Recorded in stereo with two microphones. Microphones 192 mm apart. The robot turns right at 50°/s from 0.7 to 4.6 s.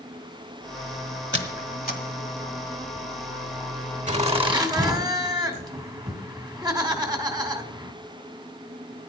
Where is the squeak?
75° left (ahead or behind), 1.5 m; by 2.0 s 45° left (ahead or behind), 1.5 m.